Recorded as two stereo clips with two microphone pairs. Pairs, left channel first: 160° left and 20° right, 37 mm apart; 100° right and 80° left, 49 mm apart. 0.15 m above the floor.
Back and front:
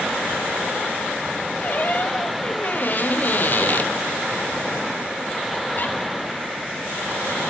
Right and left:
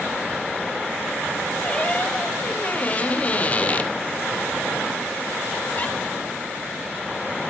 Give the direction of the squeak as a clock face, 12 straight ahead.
5 o'clock.